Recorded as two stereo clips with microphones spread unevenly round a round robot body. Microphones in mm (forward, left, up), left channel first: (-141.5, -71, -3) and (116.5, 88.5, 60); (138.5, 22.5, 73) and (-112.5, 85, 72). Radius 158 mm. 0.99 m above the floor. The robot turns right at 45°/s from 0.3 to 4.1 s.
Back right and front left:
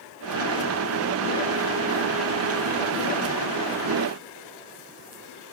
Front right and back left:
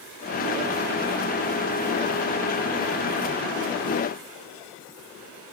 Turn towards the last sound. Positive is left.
No sound to turn to.